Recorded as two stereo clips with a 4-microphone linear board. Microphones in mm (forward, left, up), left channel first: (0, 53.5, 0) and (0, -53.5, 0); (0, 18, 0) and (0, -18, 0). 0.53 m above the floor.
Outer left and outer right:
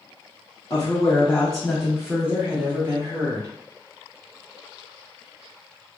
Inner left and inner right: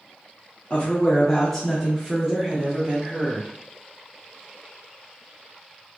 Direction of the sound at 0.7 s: 30° left (ahead or behind).